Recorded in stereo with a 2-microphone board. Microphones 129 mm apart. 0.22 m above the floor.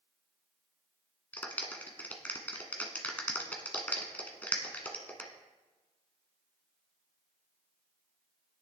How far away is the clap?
About 1.6 m.